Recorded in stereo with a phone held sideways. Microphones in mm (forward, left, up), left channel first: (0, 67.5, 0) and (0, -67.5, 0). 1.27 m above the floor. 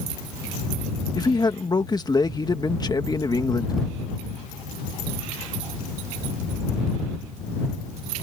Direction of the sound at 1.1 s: 30° left (ahead or behind).